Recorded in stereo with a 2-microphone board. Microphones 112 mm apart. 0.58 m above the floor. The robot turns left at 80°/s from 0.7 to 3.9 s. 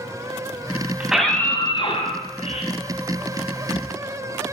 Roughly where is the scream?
Behind.